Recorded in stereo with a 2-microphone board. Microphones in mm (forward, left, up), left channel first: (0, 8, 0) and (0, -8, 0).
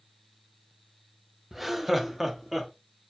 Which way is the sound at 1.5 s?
5° right (ahead or behind).